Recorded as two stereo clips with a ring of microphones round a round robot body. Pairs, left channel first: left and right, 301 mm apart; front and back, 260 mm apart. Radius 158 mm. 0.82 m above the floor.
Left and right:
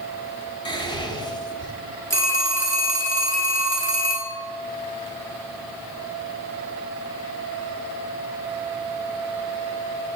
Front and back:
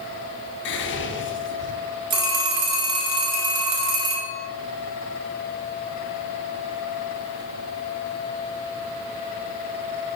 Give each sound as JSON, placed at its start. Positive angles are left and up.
{"t": 0.7, "sound": "whispering", "azimuth_deg": 20, "distance_m": 0.9}
{"t": 2.1, "sound": "a phone ringing", "azimuth_deg": 170, "distance_m": 1.6}